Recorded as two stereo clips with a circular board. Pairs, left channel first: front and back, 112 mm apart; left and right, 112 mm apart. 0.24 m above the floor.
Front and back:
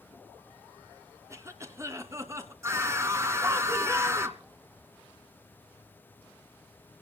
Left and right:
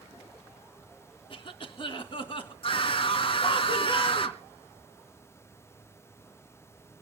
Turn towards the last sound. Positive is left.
turn(degrees=120)